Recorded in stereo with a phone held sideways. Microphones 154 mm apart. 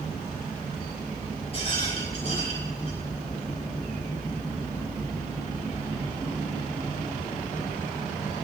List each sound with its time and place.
1.5 s a rattle: 40° left (ahead or behind), 6 m